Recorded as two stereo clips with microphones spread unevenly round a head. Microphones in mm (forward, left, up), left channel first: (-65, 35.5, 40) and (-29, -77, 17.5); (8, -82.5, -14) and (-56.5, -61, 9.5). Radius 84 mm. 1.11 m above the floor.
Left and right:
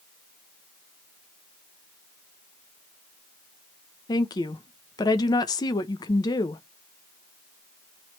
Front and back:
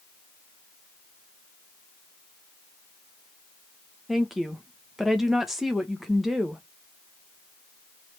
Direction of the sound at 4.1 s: 50° left.